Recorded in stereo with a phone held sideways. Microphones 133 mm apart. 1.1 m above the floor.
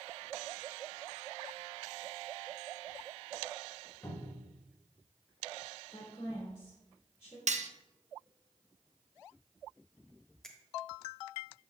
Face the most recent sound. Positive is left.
turn(degrees=5)  # may be behind; listen again after turning